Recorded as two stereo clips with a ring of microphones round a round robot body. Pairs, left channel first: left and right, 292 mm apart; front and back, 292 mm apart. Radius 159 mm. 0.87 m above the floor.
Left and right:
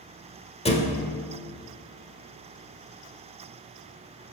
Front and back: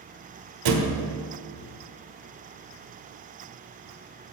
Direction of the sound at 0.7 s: 160° left.